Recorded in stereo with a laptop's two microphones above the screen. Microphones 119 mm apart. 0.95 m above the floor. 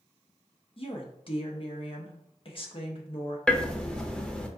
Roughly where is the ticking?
Centre.